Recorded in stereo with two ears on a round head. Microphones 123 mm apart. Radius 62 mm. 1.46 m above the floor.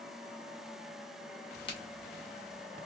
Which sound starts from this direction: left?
A crack, at 1.7 s.